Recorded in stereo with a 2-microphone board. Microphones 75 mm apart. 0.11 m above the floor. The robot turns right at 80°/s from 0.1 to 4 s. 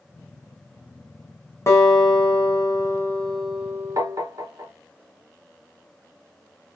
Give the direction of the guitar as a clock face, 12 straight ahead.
11 o'clock.